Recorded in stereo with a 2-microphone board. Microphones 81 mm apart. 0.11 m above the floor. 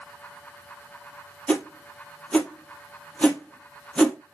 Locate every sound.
1.5 s a whoosh: 15° left (ahead or behind), 0.9 m